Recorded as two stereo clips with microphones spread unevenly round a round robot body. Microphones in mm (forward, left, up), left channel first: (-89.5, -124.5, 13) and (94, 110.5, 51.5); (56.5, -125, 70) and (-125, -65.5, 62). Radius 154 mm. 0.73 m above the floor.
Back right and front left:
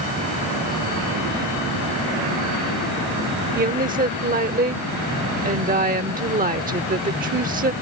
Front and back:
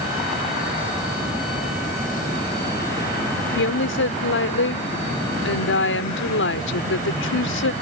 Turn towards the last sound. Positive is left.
turn(degrees=-15)